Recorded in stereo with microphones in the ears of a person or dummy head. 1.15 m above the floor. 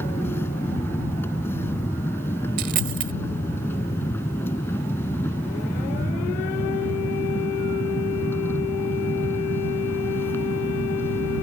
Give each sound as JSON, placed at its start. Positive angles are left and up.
{"t": 0.0, "sound": "a machine running", "side_deg": 10}
{"t": 2.6, "sound": "a dropped coin", "side_deg": -45}